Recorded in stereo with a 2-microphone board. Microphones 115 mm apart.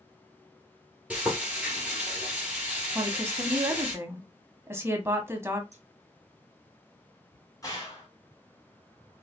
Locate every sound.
1.1 s frying: 10° right (ahead or behind), 2 m
3.0 s a woman speaking: 20° right (ahead or behind), 1.0 m
5.7 s scissors: 70° right (ahead or behind), 2 m
7.6 s a gunshot: 30° left (ahead or behind), 1.8 m